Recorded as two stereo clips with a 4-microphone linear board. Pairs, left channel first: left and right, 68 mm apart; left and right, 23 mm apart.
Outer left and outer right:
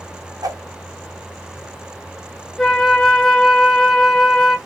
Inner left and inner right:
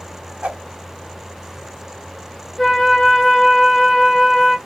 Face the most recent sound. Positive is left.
turn(degrees=5)  # may be behind; listen again after turning